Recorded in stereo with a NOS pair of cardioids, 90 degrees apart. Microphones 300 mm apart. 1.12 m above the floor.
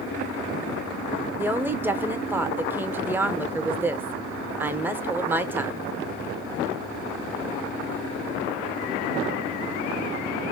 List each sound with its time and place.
1.4 s a woman speaking: 5° right, 0.6 m